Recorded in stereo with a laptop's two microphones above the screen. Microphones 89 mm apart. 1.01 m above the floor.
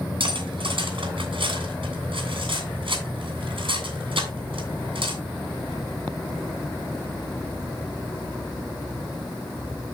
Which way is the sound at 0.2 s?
70° right (ahead or behind).